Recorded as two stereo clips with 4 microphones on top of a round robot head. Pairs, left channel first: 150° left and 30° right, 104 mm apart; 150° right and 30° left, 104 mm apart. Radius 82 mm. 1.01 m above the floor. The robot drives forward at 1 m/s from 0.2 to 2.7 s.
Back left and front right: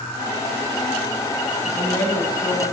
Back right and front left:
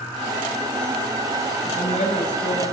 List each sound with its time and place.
1.6 s a woman speaking: 140° right, 6.5 m; by 2.6 s 145° right, 7 m